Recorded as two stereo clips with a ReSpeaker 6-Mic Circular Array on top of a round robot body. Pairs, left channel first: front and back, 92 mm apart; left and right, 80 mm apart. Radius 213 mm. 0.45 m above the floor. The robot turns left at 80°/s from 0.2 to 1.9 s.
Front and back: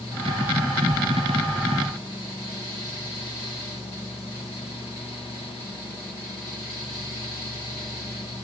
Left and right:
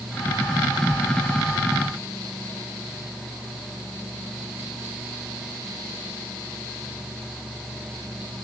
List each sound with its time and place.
Only background noise.